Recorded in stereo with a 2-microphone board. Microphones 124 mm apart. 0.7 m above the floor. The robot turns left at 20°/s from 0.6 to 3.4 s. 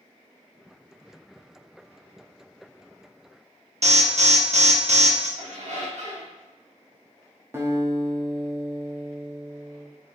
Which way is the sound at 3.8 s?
60° right (ahead or behind).